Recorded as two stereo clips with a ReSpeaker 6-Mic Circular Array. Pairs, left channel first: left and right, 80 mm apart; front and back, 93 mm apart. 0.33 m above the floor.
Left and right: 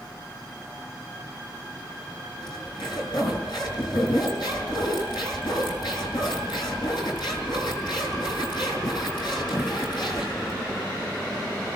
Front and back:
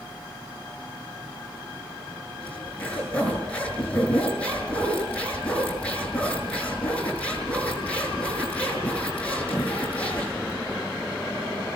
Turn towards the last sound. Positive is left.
turn(degrees=75)